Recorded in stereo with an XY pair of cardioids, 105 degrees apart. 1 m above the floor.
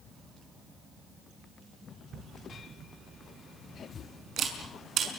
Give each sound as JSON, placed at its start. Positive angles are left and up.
{"t": 2.1, "sound": "a camera shutter", "azimuth_deg": -65, "distance_m": 5.5}